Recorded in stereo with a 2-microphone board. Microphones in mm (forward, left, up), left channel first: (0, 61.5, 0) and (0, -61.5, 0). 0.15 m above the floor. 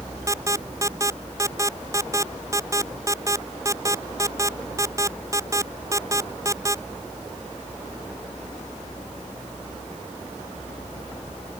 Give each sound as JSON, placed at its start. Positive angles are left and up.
{"t": 0.3, "sound": "an alarm", "side_deg": -25}